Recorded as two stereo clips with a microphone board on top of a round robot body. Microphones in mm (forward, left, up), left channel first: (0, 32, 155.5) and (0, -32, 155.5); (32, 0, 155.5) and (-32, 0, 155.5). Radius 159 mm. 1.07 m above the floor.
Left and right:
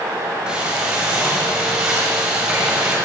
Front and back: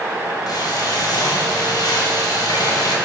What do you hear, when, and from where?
0.5 s frying: 15° right, 6 m